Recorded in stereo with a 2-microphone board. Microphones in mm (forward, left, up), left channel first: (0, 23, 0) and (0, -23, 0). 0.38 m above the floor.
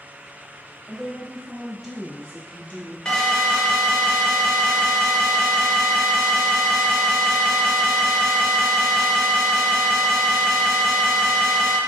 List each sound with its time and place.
0.9 s a woman speaking: 25° right (ahead or behind), 1.4 m; by 3.0 s 40° left (ahead or behind), 1.0 m
3.0 s an alarm: 15° left (ahead or behind), 0.7 m